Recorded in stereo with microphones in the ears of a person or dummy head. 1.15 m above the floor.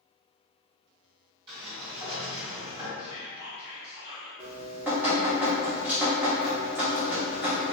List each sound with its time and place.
1.5 s a sliding door: 30° right (ahead or behind), 1.4 m
3.0 s whispering: 15° right (ahead or behind), 1.6 m
4.4 s dripping: 5° right (ahead or behind), 0.8 m